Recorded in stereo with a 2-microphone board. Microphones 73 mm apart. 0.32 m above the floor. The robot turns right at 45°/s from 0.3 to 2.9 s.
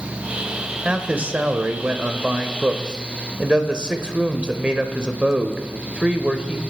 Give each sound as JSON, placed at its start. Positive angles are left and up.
{"t": 0.8, "sound": "a man speaking", "side_deg": -15, "distance_m": 0.9}